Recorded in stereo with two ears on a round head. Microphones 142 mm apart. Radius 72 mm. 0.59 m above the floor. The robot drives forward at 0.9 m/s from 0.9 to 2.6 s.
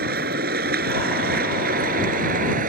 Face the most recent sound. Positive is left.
turn(degrees=-60)  # may be behind; listen again after turning